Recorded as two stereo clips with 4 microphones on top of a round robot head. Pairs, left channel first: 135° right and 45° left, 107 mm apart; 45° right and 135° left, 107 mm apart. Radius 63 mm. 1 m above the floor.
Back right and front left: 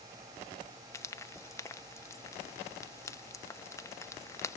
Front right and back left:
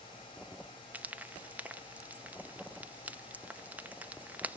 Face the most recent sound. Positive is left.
turn(degrees=-165)